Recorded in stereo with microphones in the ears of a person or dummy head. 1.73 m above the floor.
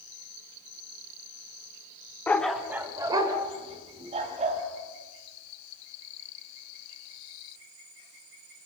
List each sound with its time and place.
2.3 s a dog barking: 15° left (ahead or behind), 1.5 m; by 4.6 s 40° right (ahead or behind), 4 m